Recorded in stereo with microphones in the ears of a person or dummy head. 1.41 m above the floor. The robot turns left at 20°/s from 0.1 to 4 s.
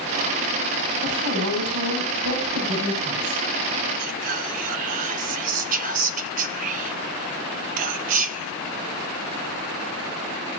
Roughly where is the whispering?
Right.